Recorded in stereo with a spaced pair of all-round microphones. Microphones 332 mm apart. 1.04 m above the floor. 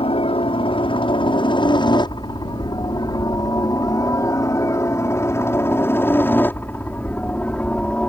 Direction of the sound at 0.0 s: 15° left (ahead or behind).